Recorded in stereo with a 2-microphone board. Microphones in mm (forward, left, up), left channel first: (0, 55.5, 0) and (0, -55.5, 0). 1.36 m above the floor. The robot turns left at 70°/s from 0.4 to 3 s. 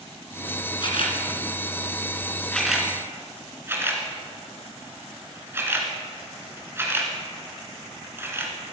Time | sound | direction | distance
0.8 | a camera shutter | 45° left (ahead or behind) | 2.5 m